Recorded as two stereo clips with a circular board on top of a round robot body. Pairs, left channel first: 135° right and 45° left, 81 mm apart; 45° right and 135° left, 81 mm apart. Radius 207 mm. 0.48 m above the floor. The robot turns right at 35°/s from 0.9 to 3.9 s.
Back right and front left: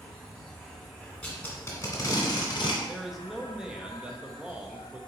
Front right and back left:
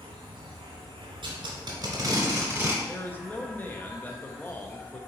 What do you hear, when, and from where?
0.0 s an insect: 145° left, 0.8 m; by 5.1 s 110° right, 0.8 m
1.2 s tape being pulled: 150° left, 1.2 m; by 2.7 s 155° right, 1.2 m
2.8 s a man speaking: 50° right, 0.9 m; by 5.0 s 15° right, 0.9 m